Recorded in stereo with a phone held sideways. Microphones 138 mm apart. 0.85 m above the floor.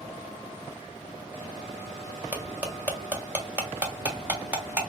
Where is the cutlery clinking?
10° right (ahead or behind), 1.5 m.